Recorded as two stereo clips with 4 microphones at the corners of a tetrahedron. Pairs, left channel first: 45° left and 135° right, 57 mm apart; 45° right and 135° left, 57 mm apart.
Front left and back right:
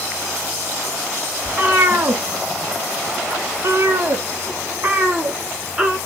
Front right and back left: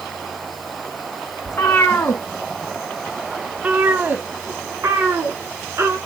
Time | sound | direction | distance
1.4 | a cat meowing | 75° right | 1.2 m